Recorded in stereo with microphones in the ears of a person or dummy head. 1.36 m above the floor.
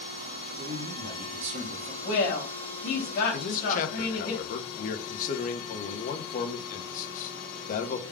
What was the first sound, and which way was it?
A man speaking, 60° right (ahead or behind).